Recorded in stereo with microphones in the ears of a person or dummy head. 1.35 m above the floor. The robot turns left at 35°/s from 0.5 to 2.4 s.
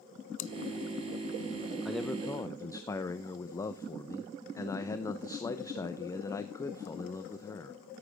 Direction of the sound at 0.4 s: 40° left (ahead or behind).